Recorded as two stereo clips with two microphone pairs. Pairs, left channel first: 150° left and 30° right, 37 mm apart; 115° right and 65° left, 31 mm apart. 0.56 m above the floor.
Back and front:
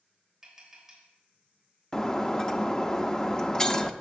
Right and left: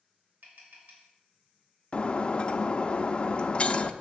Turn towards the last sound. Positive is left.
turn(degrees=-155)